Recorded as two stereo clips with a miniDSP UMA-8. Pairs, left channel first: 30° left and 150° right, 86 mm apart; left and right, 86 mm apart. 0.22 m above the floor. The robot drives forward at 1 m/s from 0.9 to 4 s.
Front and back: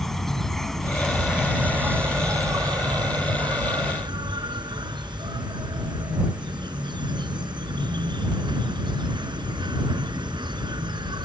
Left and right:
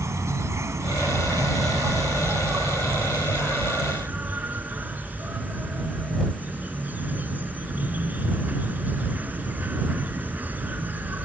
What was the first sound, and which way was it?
An insect, 55° right.